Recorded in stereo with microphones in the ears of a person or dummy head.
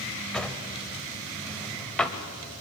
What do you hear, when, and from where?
0.3 s a drawer: 5° left (ahead or behind), 1.3 m